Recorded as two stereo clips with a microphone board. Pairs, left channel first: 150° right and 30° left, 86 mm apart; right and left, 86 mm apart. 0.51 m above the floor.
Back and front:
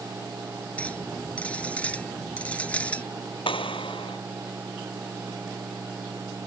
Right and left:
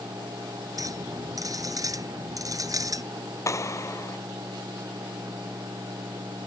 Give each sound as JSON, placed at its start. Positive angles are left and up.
{"t": 0.8, "sound": "a clink", "azimuth_deg": 135}
{"t": 3.5, "sound": "a clap", "azimuth_deg": -145}